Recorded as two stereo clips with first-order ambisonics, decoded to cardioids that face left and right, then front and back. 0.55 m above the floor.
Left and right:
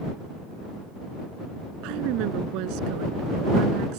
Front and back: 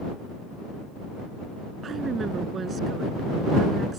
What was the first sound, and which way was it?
A woman speaking, 115° right.